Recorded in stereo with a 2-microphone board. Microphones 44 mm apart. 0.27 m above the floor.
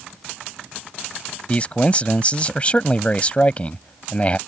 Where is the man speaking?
30° left (ahead or behind).